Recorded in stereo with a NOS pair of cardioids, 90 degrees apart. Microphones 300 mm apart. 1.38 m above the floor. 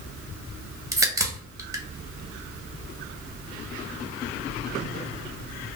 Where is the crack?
10° right, 1.0 m.